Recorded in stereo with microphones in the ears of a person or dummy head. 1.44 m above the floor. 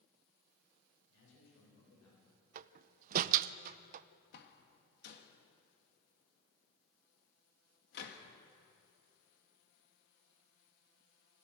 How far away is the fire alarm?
No fire alarm in this recording.